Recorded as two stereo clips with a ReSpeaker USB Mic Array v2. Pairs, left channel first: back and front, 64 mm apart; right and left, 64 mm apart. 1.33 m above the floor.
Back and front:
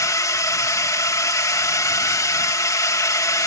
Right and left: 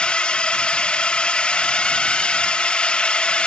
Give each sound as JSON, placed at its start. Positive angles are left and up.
{"t": 0.0, "sound": "a drone", "azimuth_deg": -160}